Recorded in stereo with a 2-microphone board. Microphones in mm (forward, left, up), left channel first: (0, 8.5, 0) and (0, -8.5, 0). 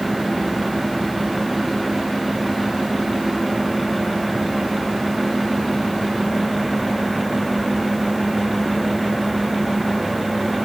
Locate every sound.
Only background noise.